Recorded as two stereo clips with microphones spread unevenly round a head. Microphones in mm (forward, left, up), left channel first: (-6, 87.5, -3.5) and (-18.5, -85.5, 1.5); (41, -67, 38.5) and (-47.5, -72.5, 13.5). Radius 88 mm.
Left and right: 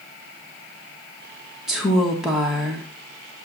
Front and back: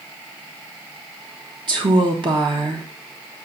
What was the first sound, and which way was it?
A woman speaking, straight behind.